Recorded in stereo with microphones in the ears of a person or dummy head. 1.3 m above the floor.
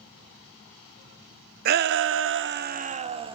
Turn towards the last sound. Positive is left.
turn(degrees=-20)  # may be behind; listen again after turning